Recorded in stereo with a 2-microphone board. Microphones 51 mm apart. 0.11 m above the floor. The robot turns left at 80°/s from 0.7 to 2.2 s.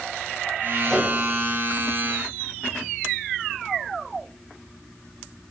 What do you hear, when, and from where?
0.8 s a microwave: 5° right (ahead or behind), 6 m; by 1.1 s 20° left (ahead or behind), 6 m